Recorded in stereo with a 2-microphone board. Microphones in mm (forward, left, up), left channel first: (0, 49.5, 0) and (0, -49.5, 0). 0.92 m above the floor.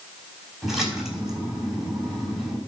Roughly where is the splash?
Centre.